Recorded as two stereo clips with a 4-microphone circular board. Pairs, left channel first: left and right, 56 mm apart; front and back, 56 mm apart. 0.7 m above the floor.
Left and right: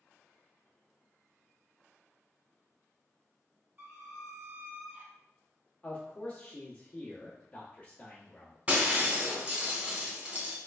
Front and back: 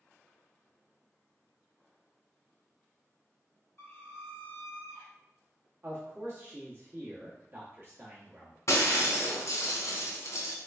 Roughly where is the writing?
I don't hear writing.